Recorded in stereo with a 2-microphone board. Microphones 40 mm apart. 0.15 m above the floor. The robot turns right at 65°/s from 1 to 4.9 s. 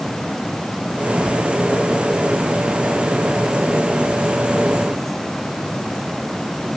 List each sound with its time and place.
Only background noise.